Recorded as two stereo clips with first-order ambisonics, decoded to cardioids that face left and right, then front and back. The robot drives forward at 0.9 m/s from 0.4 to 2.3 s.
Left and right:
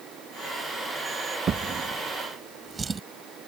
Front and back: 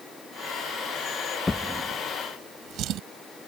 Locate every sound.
1.5 s a drawer: 70° right; by 3.0 s 160° right